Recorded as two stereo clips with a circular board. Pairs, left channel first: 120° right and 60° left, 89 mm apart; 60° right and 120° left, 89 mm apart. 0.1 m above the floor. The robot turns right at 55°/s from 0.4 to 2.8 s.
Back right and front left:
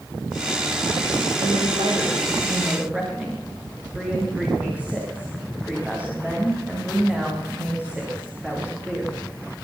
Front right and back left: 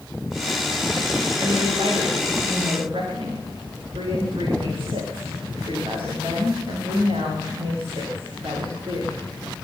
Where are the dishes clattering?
I don't hear dishes clattering.